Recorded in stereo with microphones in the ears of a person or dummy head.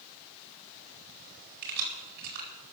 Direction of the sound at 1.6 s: 60° right (ahead or behind).